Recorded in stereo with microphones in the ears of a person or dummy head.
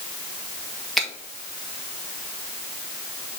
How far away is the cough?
I don't hear a cough.